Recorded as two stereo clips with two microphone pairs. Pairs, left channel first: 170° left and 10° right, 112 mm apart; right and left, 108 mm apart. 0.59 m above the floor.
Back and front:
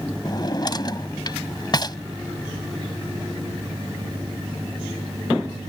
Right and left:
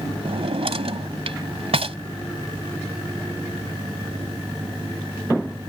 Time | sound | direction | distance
0.2 | a drawer | 115° left | ?